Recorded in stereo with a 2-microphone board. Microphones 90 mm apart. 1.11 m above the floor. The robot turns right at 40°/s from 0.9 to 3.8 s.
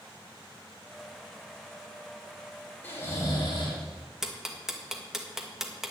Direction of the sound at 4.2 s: 5° right (ahead or behind).